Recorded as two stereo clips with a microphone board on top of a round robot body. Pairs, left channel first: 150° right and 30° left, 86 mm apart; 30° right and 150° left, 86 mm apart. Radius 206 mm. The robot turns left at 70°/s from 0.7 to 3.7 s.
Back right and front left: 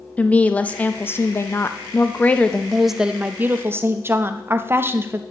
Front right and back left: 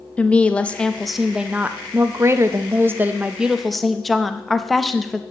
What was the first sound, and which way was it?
A woman speaking, 90° right.